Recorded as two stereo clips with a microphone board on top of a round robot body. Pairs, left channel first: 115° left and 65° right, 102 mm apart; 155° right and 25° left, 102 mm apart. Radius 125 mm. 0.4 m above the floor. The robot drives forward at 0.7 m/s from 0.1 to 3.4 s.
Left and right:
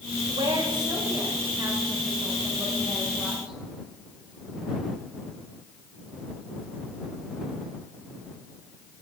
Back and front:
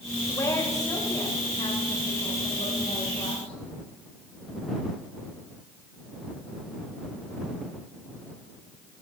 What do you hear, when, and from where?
0.3 s a woman speaking: 95° right, 2 m; by 3.5 s 140° right, 3.5 m